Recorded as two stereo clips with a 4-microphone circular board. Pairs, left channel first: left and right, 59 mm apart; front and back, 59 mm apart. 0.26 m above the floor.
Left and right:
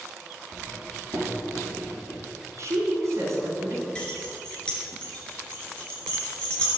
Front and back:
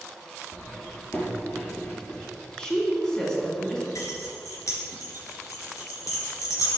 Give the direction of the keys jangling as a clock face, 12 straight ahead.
11 o'clock.